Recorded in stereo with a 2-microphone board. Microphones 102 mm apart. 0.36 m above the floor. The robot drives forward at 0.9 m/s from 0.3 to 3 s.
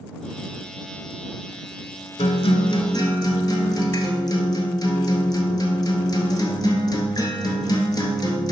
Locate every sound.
2.2 s a guitar: 80° left, 0.7 m; by 8.5 s 40° left (ahead or behind), 1.0 m